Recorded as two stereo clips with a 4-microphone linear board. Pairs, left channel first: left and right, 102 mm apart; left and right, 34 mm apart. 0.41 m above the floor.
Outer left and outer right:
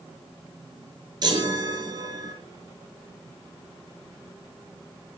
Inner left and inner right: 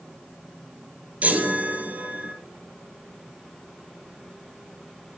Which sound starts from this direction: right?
A chime, at 1.2 s.